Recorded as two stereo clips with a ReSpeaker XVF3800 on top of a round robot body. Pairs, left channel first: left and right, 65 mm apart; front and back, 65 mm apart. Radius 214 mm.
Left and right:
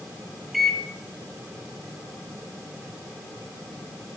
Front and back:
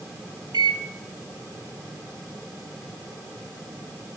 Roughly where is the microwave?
Behind.